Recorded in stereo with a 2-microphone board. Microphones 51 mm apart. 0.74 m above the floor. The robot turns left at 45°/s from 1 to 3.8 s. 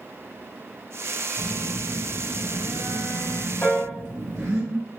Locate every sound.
1.4 s a phone buzzing: 10° right, 2 m; by 4.6 s 120° right, 2 m
3.6 s a piano: 35° left (ahead or behind), 1.4 m; by 3.9 s 30° left (ahead or behind), 1.4 m